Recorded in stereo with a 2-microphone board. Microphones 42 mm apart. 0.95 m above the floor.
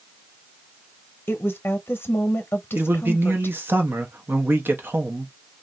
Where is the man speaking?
50° right (ahead or behind), 1.0 m.